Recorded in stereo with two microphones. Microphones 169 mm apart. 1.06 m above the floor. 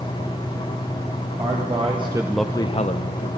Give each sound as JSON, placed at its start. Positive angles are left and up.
{"t": 1.4, "sound": "a man speaking", "side_deg": -45, "distance_m": 1.3}